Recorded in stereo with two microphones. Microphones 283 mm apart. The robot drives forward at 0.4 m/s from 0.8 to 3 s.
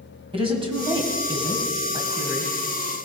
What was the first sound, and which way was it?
A woman speaking, 20° right (ahead or behind).